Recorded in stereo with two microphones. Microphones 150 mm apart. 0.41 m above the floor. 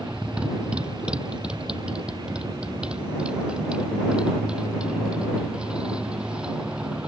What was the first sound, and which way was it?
A motorcycle, 5° right (ahead or behind).